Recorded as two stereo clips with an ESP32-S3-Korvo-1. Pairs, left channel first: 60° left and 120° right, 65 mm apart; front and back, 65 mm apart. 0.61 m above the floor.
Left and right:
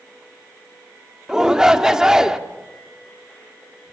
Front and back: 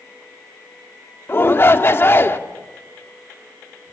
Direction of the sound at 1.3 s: 40° right.